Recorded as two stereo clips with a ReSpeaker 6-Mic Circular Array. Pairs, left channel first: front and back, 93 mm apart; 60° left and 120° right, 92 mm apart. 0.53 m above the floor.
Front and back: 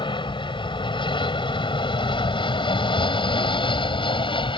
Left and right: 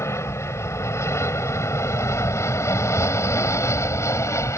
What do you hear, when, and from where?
0.0 s an aircraft: 5° left